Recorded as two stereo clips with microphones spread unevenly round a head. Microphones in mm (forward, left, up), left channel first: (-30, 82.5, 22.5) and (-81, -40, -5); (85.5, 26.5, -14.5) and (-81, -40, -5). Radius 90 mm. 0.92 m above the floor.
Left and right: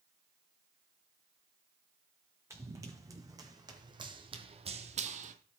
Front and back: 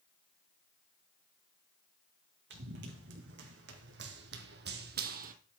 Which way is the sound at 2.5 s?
175° left.